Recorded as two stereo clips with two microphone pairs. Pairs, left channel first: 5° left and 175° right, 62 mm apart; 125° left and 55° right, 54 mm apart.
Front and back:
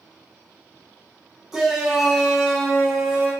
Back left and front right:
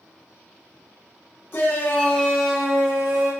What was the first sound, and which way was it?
A shout, 105° left.